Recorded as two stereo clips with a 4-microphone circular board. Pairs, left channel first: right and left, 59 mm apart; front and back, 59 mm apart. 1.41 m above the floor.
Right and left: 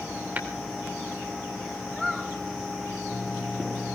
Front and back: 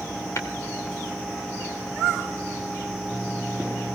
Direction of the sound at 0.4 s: 35° left.